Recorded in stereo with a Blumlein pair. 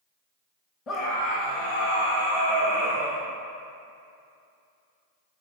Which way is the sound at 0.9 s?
25° left.